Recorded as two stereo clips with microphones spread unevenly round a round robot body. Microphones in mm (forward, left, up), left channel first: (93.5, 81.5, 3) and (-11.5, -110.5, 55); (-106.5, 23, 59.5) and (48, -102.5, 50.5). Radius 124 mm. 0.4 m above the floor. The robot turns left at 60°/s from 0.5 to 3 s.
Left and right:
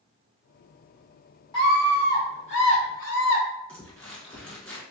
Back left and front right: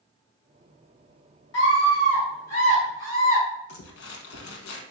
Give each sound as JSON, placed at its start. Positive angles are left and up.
{"t": 1.5, "sound": "a scream", "azimuth_deg": 120, "distance_m": 2.0}
{"t": 3.7, "sound": "crumpling", "azimuth_deg": 150, "distance_m": 0.9}